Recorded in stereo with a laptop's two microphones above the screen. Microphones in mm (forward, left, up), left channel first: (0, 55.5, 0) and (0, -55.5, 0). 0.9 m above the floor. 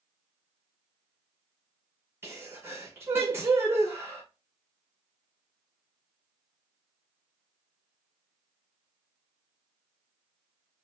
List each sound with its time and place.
2.2 s a sneeze: 20° right (ahead or behind), 0.9 m